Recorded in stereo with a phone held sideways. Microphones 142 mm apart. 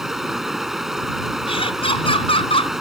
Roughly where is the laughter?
Left.